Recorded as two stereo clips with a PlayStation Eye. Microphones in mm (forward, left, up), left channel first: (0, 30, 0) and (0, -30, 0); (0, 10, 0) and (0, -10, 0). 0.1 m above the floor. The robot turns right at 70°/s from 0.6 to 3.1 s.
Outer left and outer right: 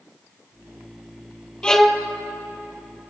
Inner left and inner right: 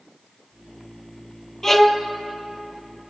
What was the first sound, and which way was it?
A violin, 20° left (ahead or behind).